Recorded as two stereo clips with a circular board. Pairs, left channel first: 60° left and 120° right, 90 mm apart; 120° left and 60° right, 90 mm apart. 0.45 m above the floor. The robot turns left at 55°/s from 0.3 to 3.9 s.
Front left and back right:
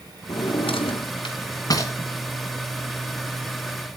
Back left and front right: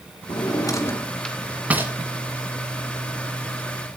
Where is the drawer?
90° left, 2.5 m; by 1.9 s 5° left, 2.5 m.